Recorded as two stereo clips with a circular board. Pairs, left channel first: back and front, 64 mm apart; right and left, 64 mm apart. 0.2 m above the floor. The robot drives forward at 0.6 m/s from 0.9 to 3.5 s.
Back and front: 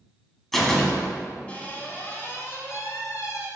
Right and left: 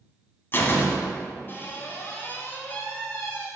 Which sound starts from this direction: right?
A door slam, at 0.5 s.